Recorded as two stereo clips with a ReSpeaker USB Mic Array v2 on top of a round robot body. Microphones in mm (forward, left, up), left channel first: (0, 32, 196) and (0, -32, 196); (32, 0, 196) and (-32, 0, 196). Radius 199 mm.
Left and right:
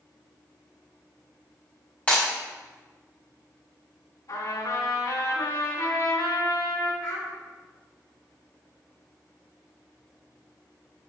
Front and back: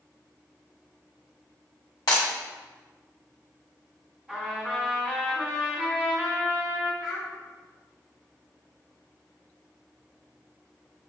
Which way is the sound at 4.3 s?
105° left.